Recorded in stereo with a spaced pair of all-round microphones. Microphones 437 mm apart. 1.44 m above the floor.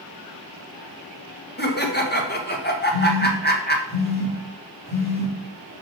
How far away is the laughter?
About 1.3 m.